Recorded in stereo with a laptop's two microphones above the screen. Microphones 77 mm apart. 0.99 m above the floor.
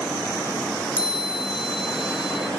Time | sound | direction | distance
1.0 | a chime | 15° right (ahead or behind) | 2 m